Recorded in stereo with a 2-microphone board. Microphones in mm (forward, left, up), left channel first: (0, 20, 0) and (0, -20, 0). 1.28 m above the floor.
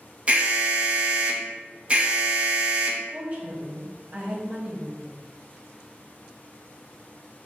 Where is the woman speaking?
30° right (ahead or behind), 1.2 m.